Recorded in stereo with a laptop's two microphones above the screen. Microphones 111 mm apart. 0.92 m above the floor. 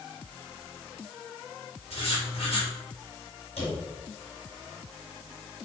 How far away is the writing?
About 3.5 m.